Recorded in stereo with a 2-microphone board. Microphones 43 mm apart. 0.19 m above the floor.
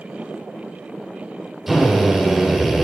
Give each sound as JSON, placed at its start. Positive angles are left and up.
{"t": 1.7, "sound": "a drill", "side_deg": -5, "distance_m": 7.5}